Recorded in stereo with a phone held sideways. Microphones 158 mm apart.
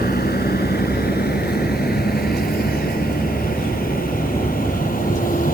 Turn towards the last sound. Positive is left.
turn(degrees=60)  # may be behind; listen again after turning